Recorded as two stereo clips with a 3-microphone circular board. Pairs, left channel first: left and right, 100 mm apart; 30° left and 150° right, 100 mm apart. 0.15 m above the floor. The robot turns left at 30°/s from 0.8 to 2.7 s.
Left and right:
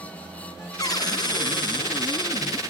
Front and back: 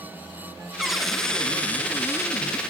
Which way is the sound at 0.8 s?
130° left.